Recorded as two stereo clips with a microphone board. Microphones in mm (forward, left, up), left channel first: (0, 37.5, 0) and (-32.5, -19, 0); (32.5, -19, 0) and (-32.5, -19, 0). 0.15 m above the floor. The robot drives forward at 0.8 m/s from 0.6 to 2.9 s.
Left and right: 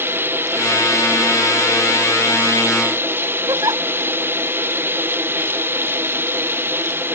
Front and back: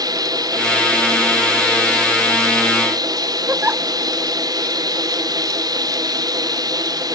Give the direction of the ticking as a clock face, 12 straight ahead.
I don't hear ticking.